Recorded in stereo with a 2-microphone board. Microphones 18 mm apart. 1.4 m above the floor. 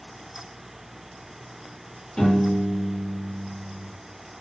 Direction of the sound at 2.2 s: 55° left (ahead or behind).